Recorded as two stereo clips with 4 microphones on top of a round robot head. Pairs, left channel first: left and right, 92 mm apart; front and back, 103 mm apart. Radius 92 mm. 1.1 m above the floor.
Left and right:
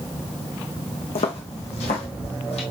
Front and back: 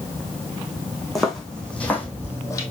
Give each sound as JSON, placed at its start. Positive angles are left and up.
{"t": 1.1, "sound": "footsteps", "azimuth_deg": 85, "distance_m": 3.5}